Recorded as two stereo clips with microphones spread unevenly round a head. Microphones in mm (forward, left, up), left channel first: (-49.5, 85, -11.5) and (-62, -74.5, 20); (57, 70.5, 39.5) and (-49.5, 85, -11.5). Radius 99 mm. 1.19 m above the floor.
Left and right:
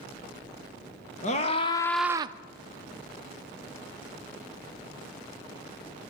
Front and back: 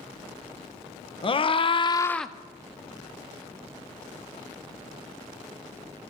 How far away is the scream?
About 1.2 m.